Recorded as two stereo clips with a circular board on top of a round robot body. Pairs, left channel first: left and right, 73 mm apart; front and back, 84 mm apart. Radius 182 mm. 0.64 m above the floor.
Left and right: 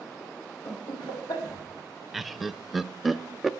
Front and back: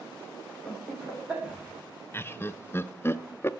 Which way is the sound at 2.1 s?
5° right.